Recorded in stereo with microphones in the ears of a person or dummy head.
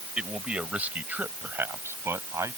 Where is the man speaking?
5° right (ahead or behind); by 2.6 s 15° right (ahead or behind).